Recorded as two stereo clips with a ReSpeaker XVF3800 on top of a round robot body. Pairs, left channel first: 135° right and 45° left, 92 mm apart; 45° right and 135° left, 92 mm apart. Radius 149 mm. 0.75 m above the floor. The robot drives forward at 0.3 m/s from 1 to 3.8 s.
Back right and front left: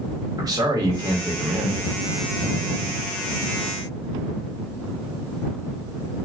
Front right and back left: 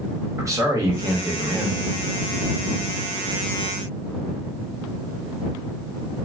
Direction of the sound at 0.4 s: 85° left.